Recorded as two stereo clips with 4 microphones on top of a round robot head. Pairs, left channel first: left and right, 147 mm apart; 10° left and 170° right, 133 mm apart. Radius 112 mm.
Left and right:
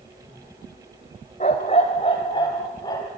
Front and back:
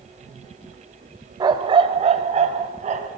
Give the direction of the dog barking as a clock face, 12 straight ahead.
7 o'clock.